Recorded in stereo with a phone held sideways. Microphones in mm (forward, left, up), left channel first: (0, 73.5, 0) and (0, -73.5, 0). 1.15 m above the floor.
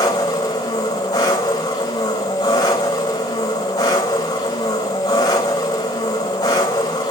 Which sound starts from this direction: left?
An engine running, at 0.0 s.